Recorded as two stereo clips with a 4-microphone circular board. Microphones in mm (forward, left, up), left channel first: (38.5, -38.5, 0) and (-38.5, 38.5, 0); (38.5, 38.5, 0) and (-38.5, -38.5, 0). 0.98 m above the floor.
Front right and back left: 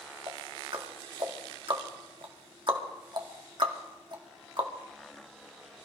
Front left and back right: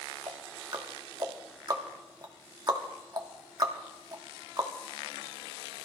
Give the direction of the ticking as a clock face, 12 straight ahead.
6 o'clock.